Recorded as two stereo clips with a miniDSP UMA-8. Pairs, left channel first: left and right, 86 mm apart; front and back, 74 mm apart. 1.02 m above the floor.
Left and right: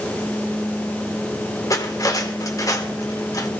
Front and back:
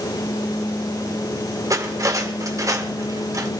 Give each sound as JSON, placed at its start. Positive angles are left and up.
{"t": 1.7, "sound": "cutlery clinking", "azimuth_deg": 135, "distance_m": 2.0}